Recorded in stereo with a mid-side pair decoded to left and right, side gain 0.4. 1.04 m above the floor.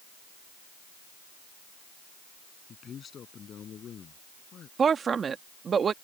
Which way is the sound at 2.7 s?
55° left.